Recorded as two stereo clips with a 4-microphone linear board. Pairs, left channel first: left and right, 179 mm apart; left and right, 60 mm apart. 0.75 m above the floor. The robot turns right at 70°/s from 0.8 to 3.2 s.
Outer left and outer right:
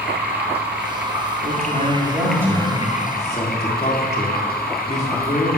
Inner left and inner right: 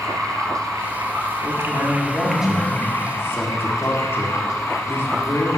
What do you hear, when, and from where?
0.0 s running water: 105° right, 1.9 m; by 5.6 s 65° left, 1.9 m
1.4 s a man speaking: 85° right, 1.8 m; by 5.6 s 40° left, 1.8 m